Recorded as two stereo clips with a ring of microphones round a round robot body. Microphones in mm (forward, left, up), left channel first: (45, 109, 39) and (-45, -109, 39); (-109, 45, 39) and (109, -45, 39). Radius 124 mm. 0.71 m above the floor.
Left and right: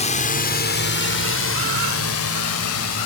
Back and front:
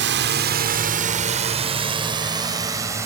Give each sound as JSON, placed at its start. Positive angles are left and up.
{"t": 0.0, "sound": "a drone", "azimuth_deg": 10}